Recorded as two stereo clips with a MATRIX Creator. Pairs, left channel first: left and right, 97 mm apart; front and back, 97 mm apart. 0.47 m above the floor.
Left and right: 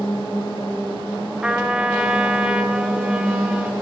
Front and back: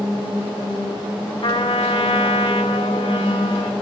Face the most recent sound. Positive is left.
turn(degrees=-10)